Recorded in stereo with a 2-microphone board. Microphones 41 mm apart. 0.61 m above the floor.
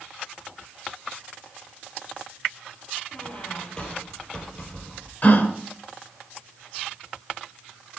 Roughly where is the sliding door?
I don't hear a sliding door.